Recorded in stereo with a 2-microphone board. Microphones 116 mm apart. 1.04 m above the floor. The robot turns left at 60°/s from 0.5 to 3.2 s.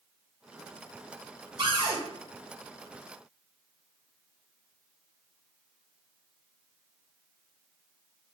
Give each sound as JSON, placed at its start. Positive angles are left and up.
{"t": 1.6, "sound": "a cupboard door", "side_deg": -45, "distance_m": 1.0}